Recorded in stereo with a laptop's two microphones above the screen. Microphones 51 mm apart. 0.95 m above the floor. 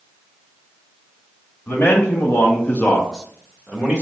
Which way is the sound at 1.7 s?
50° left (ahead or behind).